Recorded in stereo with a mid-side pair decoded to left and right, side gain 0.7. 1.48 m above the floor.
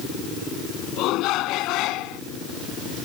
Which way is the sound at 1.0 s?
60° left.